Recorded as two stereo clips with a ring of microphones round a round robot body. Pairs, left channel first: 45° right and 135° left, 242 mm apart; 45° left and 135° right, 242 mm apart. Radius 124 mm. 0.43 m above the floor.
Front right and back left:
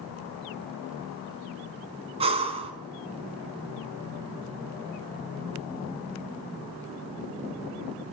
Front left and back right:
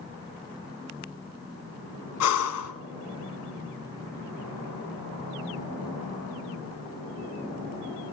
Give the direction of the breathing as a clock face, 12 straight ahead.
10 o'clock.